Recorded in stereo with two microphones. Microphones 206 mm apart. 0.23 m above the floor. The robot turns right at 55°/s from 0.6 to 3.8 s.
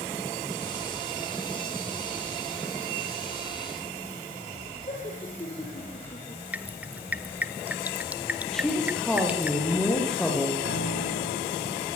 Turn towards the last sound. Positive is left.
turn(degrees=80)